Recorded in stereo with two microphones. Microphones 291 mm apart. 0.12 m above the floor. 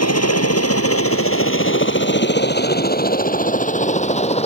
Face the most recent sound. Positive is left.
turn(degrees=20)  # may be behind; listen again after turning